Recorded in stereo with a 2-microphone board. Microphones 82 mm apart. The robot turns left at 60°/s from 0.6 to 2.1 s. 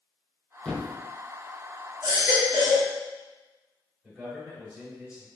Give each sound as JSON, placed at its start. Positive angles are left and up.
{"t": 0.7, "sound": "a thud", "side_deg": 15, "distance_m": 0.6}
{"t": 2.0, "sound": "a baby crying", "side_deg": -5, "distance_m": 1.6}
{"t": 4.0, "sound": "a man speaking", "side_deg": -10, "distance_m": 1.3}